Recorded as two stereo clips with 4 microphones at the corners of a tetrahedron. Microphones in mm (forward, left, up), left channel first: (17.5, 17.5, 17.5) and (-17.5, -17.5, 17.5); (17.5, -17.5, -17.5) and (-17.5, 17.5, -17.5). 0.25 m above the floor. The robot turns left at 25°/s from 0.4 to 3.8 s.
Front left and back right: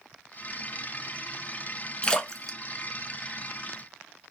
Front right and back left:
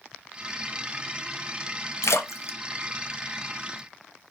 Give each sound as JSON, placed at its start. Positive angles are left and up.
{"t": 2.0, "sound": "a splash", "azimuth_deg": -25, "distance_m": 0.5}